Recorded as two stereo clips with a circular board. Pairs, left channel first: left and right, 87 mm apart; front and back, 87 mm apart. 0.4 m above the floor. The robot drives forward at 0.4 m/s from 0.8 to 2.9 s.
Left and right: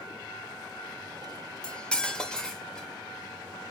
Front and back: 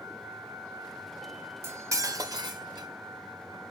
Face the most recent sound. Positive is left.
turn(degrees=170)